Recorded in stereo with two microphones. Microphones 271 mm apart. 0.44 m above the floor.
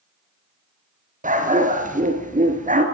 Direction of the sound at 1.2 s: 30° right (ahead or behind).